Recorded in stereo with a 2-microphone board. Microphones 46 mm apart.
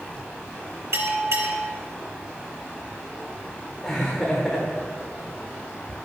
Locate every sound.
0.9 s a bell: 70° right (ahead or behind), 2 m
3.8 s laughter: 10° left (ahead or behind), 1.2 m